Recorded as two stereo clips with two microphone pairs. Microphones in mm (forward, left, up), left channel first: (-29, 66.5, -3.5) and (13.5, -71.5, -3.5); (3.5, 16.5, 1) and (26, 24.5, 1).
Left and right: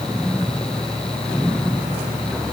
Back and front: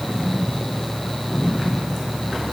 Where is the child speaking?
No child speaking in this recording.